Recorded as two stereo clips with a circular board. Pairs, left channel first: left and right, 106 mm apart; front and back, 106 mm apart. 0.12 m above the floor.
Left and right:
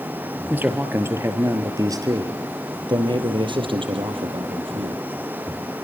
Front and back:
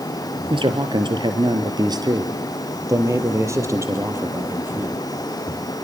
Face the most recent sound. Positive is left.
turn(degrees=-110)